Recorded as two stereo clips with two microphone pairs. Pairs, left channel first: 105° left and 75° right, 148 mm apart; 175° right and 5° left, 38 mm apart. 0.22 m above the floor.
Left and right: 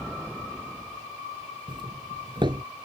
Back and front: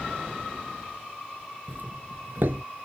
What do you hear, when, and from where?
1.7 s a doorbell: 20° right